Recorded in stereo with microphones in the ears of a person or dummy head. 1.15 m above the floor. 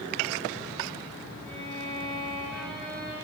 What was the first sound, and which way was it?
A violin, 10° left (ahead or behind).